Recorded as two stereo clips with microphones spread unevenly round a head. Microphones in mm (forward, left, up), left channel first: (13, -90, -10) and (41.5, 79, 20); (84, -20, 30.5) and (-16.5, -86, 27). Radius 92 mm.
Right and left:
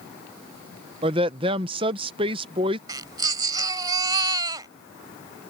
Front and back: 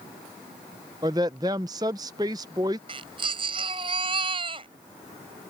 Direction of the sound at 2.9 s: 150° left.